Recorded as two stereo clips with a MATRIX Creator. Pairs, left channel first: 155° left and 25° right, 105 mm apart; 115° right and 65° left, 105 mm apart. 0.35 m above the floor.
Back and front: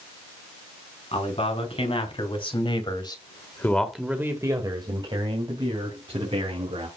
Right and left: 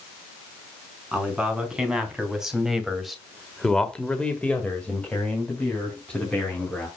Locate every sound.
1.1 s a man speaking: 150° left, 4.5 m; by 6.9 s 35° right, 5 m